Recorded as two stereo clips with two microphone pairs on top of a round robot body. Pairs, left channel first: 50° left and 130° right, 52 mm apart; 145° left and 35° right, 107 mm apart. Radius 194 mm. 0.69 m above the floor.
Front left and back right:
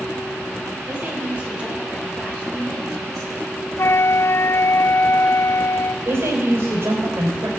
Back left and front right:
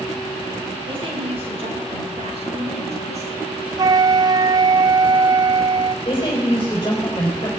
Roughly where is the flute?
Ahead.